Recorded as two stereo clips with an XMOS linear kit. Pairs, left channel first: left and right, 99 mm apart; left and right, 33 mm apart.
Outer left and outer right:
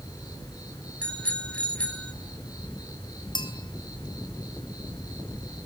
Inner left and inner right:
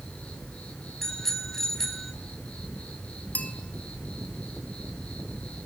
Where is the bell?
50° left (ahead or behind), 3 m.